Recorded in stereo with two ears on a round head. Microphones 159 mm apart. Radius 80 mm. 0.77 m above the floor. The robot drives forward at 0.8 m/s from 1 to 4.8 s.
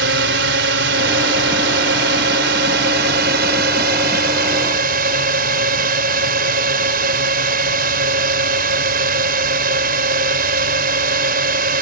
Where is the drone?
70° right (ahead or behind); by 11.8 s 55° right (ahead or behind).